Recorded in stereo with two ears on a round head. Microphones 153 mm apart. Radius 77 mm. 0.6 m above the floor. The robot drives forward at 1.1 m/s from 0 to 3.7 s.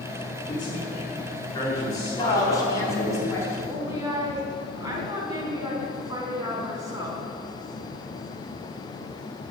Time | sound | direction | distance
0.5 | a man speaking | 40° left (ahead or behind) | 5.5 m
2.2 | a woman speaking | 25° left (ahead or behind) | 4 m
3.7 | a woman speaking | 20° right (ahead or behind) | 4.5 m